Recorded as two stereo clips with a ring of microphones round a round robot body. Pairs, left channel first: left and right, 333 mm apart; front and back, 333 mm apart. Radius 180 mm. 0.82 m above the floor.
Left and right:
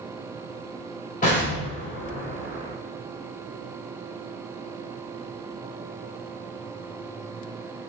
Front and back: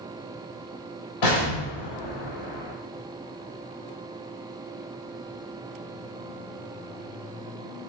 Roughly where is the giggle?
I don't hear a giggle.